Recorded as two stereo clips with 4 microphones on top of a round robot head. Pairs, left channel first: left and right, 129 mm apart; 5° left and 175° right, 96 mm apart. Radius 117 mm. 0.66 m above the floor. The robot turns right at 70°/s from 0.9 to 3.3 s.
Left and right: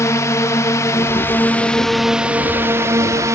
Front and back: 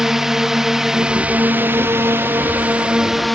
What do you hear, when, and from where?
0.0 s a drone: 105° left; by 3.4 s 85° right